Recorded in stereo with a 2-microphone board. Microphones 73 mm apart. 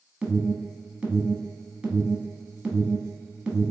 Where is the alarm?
10° right (ahead or behind), 1.3 m.